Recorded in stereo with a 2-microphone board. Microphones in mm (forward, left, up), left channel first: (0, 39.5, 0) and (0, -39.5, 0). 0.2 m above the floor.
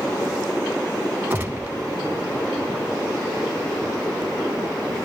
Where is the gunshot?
20° right (ahead or behind), 0.9 m.